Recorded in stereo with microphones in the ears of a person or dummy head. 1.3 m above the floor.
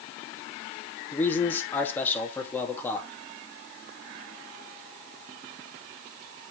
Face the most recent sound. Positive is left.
turn(degrees=10)  # may be behind; listen again after turning